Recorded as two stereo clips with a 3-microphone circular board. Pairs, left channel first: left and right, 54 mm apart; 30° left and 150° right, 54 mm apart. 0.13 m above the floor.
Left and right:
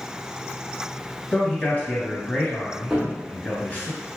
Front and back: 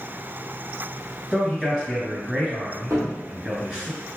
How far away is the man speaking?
About 2.0 m.